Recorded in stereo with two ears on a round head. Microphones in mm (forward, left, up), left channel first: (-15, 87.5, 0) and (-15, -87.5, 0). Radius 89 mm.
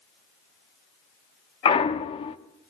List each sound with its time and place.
1.6 s a clunk: 30° left (ahead or behind), 0.7 m